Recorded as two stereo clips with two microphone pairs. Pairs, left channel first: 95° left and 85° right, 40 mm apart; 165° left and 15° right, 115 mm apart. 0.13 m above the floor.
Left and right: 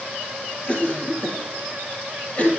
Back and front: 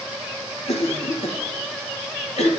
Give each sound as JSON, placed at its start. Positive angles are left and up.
{"t": 0.7, "sound": "a cough", "azimuth_deg": 150, "distance_m": 3.0}